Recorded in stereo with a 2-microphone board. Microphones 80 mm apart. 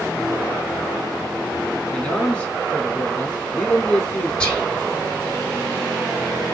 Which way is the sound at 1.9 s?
15° left (ahead or behind).